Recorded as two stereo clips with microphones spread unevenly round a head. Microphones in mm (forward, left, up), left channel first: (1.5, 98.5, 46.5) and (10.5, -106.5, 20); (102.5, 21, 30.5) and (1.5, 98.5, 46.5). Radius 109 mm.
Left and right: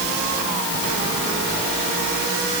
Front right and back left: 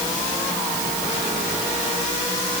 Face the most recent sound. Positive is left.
No sound to turn to.